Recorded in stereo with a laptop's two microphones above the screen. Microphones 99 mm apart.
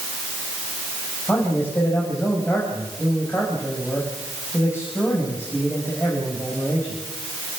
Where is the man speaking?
25° left (ahead or behind), 5.5 m.